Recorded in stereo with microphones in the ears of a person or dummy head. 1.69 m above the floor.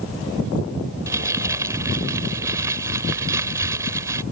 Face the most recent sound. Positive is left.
turn(degrees=-15)  # may be behind; listen again after turning